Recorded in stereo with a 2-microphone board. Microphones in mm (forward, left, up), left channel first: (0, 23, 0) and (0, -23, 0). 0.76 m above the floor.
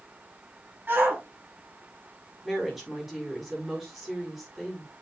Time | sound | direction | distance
0.9 | a shout | 45° right (ahead or behind) | 4.5 m
2.4 | a woman speaking | 5° right (ahead or behind) | 6 m